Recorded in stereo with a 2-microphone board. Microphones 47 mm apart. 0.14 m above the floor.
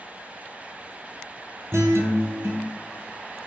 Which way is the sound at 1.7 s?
65° right (ahead or behind).